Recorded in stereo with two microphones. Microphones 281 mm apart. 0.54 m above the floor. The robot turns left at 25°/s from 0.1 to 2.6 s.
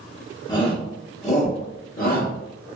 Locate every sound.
0.5 s a shout: 15° left (ahead or behind), 0.7 m; by 2.3 s 35° left (ahead or behind), 0.7 m